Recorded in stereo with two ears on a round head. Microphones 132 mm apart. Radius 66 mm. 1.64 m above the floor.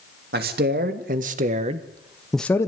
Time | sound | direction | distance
0.3 | a man speaking | 70° right (ahead or behind) | 3 m